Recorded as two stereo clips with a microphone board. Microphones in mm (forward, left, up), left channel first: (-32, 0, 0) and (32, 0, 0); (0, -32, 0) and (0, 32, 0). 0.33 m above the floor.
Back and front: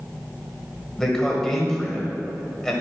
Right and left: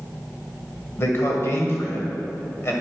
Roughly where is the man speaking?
Right.